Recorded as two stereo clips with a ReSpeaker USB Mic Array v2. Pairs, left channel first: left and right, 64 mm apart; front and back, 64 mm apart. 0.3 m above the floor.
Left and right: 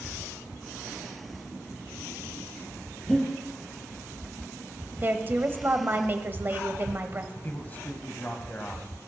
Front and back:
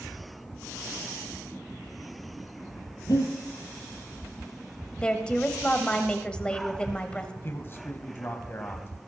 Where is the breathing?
5° left, 4.5 m.